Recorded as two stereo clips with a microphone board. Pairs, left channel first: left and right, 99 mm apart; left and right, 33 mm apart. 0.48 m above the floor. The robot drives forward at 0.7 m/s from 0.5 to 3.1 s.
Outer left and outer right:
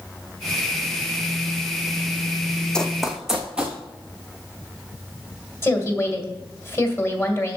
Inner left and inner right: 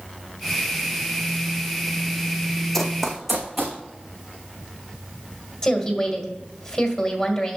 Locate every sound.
2.7 s running footsteps: 10° left (ahead or behind), 1.1 m; by 3.8 s 10° right (ahead or behind), 2 m
5.6 s a woman speaking: 25° left (ahead or behind), 1.9 m